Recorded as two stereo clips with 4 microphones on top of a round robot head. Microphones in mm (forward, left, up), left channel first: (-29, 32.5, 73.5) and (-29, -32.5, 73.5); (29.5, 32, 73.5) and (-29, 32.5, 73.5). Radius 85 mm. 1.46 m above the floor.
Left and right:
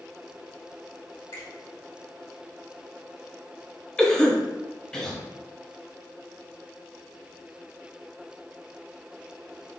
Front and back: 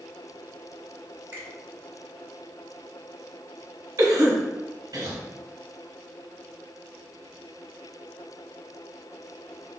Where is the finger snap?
115° left, 1.8 m.